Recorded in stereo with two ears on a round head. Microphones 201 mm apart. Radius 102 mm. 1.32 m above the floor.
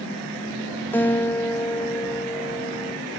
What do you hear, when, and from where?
0.9 s a guitar: 10° left (ahead or behind), 0.7 m